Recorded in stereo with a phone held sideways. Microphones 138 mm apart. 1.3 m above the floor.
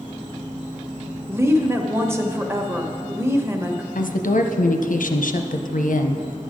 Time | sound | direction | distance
0.0 | an insect | 75° right (ahead or behind) | 3.5 m
1.3 | a woman speaking | 20° right (ahead or behind) | 1.0 m
4.0 | a woman speaking | 80° left | 0.6 m